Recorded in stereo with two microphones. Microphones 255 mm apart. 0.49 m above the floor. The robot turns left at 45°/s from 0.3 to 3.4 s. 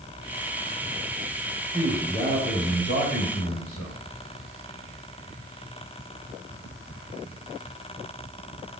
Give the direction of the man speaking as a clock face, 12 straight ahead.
6 o'clock.